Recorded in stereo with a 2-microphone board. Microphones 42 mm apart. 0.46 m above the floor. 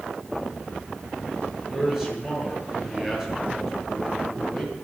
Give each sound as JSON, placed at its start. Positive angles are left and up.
{"t": 1.7, "sound": "a man speaking", "side_deg": -10, "distance_m": 8.5}